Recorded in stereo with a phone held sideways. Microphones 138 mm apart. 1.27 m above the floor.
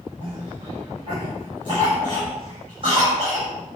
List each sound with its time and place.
0.2 s a cough: 40° right (ahead or behind), 6.5 m